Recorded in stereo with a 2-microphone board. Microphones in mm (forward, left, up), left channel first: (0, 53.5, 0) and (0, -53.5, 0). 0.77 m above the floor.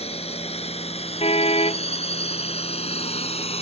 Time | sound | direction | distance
0.0 | a drone | 70° left (ahead or behind) | ?
1.2 | a car horn | 70° left (ahead or behind) | ?